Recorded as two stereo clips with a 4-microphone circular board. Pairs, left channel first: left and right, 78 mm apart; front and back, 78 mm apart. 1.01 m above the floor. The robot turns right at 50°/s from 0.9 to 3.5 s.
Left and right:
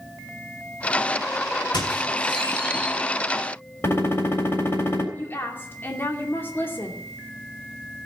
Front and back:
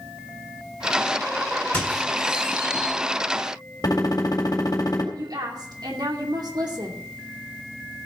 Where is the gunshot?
35° left, 3.5 m.